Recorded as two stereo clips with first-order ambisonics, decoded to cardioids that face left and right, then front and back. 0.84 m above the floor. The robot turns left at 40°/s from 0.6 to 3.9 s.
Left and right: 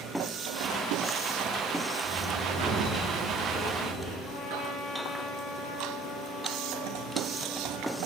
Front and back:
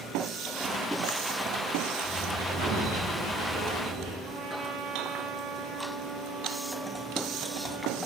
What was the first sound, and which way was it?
A sliding door, 70° right.